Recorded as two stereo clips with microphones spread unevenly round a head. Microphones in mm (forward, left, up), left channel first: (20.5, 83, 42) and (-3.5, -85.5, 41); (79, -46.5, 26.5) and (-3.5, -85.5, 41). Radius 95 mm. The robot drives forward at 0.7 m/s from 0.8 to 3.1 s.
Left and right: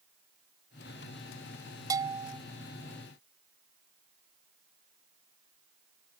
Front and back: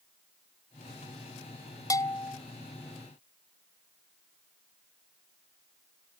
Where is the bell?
30° right.